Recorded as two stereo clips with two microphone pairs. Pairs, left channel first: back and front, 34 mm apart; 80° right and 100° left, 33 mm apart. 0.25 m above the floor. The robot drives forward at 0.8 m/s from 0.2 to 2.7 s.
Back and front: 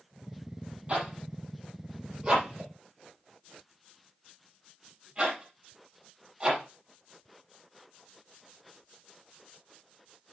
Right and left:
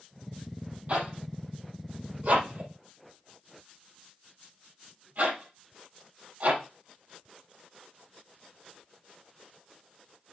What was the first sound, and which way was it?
A zipper, 60° left.